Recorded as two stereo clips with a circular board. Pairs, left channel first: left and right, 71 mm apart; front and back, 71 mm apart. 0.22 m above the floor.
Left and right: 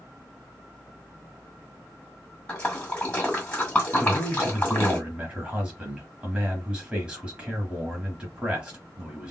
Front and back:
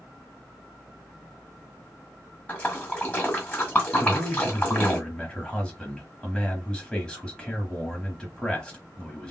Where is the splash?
40° left, 1.8 m.